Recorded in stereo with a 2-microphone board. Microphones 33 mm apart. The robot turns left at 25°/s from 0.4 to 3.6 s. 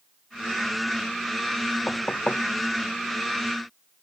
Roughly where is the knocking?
Left.